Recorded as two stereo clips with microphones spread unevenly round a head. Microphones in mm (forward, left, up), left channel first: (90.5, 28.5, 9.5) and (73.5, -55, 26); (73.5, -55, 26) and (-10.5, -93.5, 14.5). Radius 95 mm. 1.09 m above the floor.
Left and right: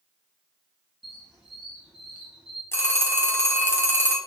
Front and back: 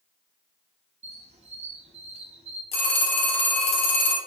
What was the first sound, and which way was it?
A squeak, 175° left.